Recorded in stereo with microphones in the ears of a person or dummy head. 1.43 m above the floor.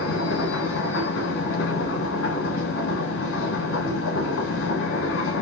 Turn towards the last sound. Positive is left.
turn(degrees=70)  # may be behind; listen again after turning